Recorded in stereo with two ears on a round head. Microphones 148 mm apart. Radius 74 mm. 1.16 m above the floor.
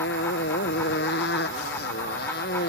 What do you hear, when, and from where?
0.0 s a motorcycle: 75° left (ahead or behind); by 2.7 s 65° left (ahead or behind)